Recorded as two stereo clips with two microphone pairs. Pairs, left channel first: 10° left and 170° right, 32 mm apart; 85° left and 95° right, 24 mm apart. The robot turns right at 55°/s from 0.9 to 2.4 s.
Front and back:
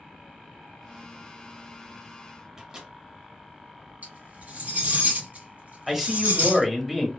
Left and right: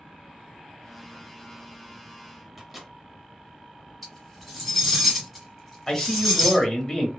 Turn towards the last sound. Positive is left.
turn(degrees=110)